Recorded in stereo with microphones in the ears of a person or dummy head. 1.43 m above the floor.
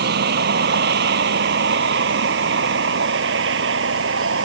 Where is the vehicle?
65° right (ahead or behind); by 4.5 s 80° right.